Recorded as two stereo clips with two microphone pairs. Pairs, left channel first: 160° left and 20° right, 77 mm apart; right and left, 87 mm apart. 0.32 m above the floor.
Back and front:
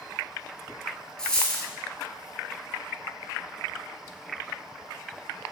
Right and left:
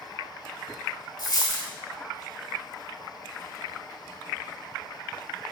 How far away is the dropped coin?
About 0.6 m.